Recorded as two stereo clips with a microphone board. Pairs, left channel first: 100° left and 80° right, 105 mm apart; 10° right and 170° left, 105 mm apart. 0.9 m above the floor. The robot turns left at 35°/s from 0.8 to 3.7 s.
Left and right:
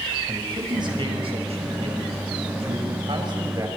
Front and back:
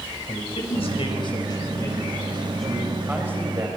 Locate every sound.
0.3 s a man speaking: 35° right, 6 m; by 3.7 s 135° right, 6 m